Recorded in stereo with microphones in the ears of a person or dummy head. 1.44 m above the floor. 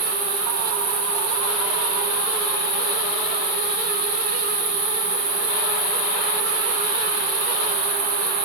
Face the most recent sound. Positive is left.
turn(degrees=-75)  # may be behind; listen again after turning